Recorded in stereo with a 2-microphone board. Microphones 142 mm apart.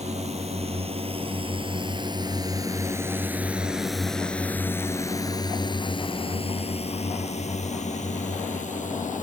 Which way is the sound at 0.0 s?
55° right (ahead or behind).